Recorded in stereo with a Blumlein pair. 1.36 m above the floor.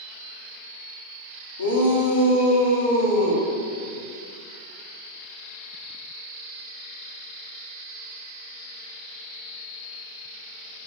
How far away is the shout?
About 0.5 m.